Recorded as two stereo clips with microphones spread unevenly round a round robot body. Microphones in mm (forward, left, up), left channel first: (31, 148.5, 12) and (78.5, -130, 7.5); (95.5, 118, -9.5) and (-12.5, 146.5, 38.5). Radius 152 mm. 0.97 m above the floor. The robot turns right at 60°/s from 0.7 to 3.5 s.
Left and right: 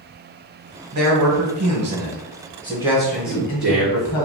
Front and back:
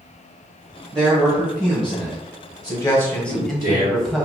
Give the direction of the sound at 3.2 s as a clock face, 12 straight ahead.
6 o'clock.